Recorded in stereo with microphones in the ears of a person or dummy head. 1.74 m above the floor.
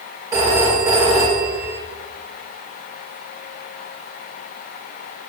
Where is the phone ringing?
25° right (ahead or behind), 5 m.